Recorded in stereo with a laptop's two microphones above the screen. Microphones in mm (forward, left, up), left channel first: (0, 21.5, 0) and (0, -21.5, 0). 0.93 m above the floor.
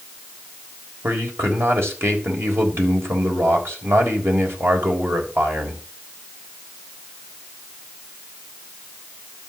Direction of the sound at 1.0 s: 65° right (ahead or behind).